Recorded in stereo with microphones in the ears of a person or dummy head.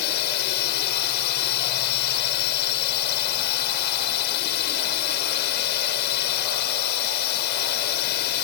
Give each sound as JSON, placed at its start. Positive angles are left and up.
{"t": 0.0, "sound": "a drone", "side_deg": 55}